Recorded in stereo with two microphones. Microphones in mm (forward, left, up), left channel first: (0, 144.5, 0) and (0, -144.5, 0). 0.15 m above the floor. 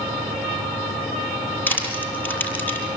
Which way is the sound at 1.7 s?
5° left (ahead or behind).